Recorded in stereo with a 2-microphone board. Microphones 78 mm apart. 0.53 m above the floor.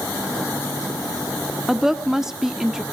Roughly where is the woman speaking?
Centre.